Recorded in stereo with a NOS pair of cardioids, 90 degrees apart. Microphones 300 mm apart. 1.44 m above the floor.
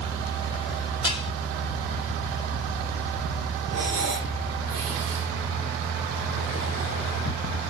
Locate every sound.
1.0 s dishes clattering: 15° left, 5 m
3.7 s breathing: 55° right, 3 m